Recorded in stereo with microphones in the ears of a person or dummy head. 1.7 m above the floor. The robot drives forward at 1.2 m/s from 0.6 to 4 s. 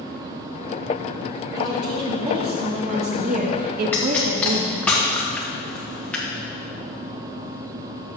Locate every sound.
1.6 s a woman speaking: 20° right (ahead or behind), 4 m; by 4.9 s 60° right (ahead or behind), 1.6 m
3.9 s a pop: 5° left (ahead or behind), 1.0 m